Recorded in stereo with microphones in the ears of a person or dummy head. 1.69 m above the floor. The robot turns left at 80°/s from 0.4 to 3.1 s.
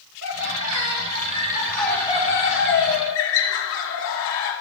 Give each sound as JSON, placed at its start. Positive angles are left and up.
{"t": 0.2, "sound": "laughter", "azimuth_deg": -70, "distance_m": 6.0}